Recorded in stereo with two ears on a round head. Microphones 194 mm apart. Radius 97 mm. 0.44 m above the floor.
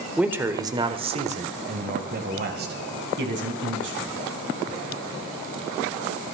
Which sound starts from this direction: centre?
A man speaking, at 0.2 s.